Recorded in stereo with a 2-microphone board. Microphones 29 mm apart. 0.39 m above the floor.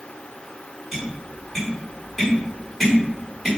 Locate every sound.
0.9 s tapping: centre (ahead or behind), 1.3 m